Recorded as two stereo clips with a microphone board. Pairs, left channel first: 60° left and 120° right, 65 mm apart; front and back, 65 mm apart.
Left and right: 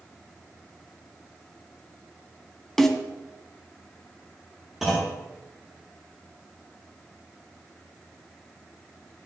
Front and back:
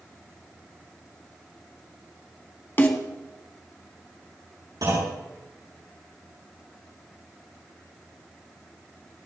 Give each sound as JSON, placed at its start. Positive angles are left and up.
{"t": 2.8, "sound": "a snare drum", "azimuth_deg": -20, "distance_m": 1.8}
{"t": 4.8, "sound": "a clunk", "azimuth_deg": 155, "distance_m": 8.0}